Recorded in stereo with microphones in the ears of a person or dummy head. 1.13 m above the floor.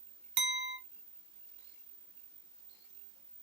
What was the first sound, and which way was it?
A clink, 55° right (ahead or behind).